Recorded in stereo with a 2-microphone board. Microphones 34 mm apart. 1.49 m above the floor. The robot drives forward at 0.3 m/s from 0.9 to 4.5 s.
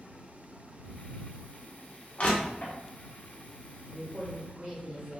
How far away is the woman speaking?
About 1.5 m.